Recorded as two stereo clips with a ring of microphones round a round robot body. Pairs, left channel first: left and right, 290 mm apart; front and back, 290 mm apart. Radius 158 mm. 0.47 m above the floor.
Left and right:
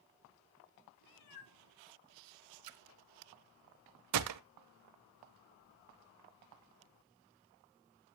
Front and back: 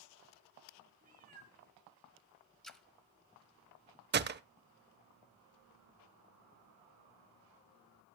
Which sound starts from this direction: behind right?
A gunshot, at 4.1 s.